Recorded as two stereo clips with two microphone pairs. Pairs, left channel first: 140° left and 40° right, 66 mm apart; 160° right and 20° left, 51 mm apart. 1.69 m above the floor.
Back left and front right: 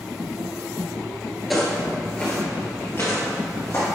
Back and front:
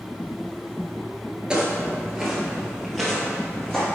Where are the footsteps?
50° left, 1.7 m; by 3.9 s 120° left, 2.5 m.